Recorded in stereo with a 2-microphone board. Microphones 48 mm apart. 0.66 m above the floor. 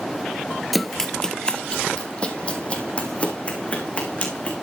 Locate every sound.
0.7 s running footsteps: centre (ahead or behind), 0.7 m; by 4.5 s 30° left (ahead or behind), 3.5 m